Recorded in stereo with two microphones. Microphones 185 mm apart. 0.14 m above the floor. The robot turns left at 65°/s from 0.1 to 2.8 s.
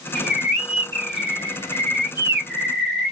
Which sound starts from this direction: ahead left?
A bird, at 0.1 s.